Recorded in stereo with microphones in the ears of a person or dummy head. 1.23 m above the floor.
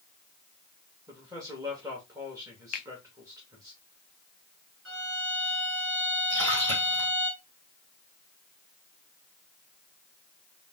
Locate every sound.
1.1 s a man speaking: 25° right (ahead or behind), 1.6 m
2.7 s a finger snap: 40° left (ahead or behind), 0.5 m
4.8 s a violin: 65° right (ahead or behind), 1.4 m
6.3 s a splash: 75° right (ahead or behind), 2.5 m